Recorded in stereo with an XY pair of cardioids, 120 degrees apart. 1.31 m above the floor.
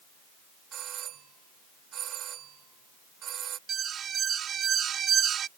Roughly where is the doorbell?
Ahead right.